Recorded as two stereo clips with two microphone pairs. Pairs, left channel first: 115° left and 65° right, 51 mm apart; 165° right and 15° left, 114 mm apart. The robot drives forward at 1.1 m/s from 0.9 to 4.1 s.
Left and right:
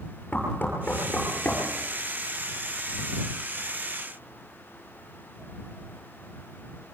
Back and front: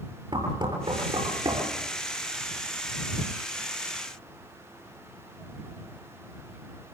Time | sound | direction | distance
0.3 | knocking | 60° left | 9.5 m